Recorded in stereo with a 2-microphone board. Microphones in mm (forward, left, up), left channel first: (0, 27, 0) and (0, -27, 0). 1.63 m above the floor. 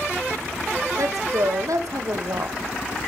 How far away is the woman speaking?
About 1.3 m.